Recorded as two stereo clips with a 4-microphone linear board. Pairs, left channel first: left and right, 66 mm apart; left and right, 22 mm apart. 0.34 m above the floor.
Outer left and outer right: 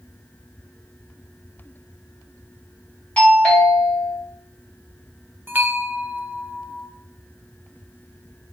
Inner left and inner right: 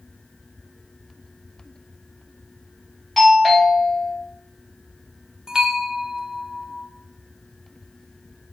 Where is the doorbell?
20° left (ahead or behind), 2.5 m.